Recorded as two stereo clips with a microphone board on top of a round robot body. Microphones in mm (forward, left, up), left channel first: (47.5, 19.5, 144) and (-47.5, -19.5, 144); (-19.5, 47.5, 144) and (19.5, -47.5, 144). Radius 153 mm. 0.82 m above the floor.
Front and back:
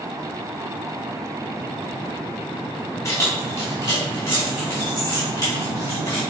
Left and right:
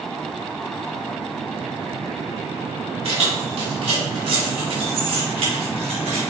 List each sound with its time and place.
3.0 s keys jangling: 40° right, 2.5 m; by 6.2 s 45° right, 5 m